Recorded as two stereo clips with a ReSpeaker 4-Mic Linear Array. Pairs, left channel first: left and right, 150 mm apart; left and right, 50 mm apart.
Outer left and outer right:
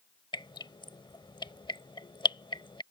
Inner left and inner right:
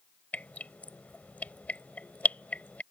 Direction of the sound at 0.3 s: 35° left (ahead or behind).